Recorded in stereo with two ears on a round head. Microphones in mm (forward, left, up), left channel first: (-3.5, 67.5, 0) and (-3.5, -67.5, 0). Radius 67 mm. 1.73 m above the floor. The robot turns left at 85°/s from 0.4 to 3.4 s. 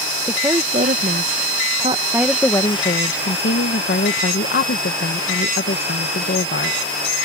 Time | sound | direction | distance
0.3 | a woman speaking | 15° right | ?